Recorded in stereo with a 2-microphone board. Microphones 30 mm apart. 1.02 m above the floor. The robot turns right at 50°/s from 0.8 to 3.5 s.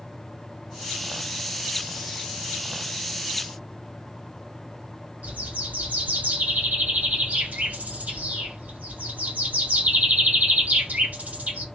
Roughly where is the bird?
Right.